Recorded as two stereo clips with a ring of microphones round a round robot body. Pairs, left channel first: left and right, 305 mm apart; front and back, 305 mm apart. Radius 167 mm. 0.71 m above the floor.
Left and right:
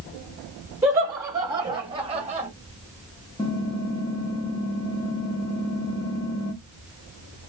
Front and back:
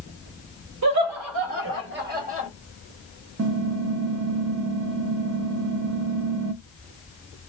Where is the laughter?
170° right, 1.4 m; by 2.5 s 135° right, 1.0 m.